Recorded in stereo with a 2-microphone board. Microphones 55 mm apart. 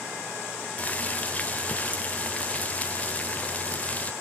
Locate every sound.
0.8 s boiling: 30° left (ahead or behind), 0.8 m